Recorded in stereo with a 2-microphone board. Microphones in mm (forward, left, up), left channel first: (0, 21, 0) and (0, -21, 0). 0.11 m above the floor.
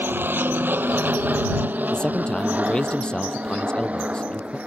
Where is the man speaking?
25° left (ahead or behind).